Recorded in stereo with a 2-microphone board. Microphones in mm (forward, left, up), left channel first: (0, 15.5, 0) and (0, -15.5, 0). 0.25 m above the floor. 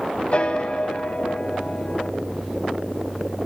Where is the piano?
40° left (ahead or behind), 0.6 m.